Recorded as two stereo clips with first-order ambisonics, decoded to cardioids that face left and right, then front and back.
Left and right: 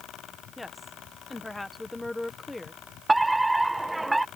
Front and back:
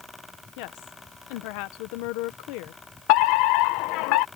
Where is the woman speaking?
5° left.